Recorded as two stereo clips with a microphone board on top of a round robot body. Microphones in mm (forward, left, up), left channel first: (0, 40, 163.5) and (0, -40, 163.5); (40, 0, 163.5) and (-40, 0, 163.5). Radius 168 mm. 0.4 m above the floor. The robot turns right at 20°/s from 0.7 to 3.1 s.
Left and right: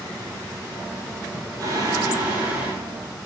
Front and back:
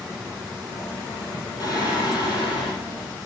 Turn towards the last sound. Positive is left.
turn(degrees=-10)